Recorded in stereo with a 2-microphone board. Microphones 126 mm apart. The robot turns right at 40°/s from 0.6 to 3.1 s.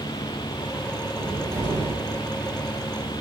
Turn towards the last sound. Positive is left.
turn(degrees=-85)